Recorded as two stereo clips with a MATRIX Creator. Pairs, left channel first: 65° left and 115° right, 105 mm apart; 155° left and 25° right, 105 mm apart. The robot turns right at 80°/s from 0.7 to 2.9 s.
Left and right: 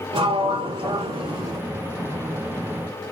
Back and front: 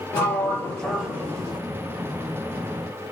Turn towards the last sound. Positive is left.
turn(degrees=45)